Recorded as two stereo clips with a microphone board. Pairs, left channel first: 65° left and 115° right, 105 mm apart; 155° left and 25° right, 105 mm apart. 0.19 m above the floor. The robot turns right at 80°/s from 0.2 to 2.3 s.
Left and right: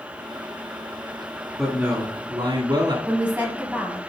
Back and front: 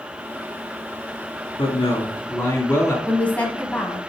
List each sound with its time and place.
1.6 s a man speaking: 165° left, 1.6 m; by 3.0 s 135° right, 1.6 m
3.1 s a woman speaking: 160° right, 1.0 m